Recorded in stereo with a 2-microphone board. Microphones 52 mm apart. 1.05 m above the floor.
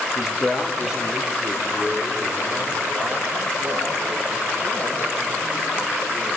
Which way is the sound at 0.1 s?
10° left (ahead or behind).